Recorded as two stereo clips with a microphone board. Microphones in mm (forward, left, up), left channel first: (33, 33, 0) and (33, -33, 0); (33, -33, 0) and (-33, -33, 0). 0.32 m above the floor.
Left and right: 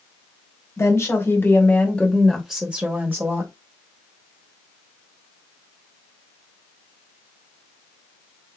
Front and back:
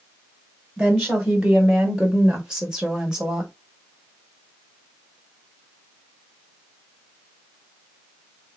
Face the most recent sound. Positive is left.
turn(degrees=-105)